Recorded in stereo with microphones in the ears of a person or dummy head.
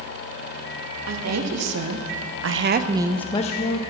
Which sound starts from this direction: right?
A woman speaking, at 1.1 s.